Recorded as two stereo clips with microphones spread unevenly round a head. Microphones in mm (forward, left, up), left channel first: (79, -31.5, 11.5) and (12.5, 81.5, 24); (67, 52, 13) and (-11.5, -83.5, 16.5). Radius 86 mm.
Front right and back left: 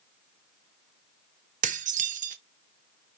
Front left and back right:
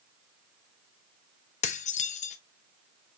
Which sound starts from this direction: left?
Dishes clattering, at 1.6 s.